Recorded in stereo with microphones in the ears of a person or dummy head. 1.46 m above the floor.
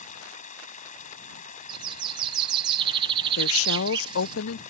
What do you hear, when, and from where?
0.0 s running water: 40° left (ahead or behind)
1.7 s a bird: 25° right (ahead or behind)
3.4 s a woman speaking: 85° left